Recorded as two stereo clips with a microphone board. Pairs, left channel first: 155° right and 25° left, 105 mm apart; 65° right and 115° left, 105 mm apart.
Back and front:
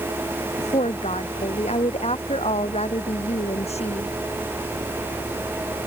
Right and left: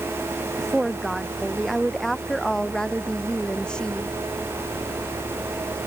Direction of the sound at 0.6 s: 160° right.